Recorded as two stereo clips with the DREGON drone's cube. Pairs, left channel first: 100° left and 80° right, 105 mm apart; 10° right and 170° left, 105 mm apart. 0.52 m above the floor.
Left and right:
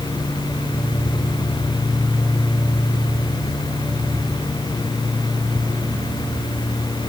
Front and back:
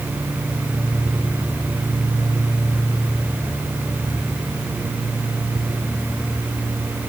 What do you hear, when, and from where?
Only background noise.